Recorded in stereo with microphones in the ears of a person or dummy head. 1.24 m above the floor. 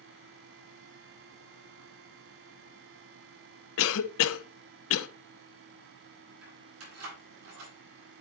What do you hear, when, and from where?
3.8 s a cough: 75° left (ahead or behind), 0.7 m
6.4 s keys jangling: 85° right, 4.5 m